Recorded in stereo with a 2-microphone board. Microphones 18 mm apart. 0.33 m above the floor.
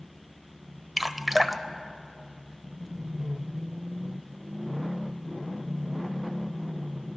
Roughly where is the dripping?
Centre.